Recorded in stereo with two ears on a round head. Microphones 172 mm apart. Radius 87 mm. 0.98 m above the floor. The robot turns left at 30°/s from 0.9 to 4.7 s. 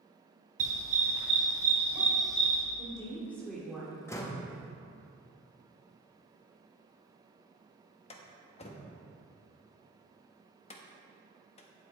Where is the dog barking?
40° right (ahead or behind), 2.5 m; by 2.6 s 15° left (ahead or behind), 2.5 m.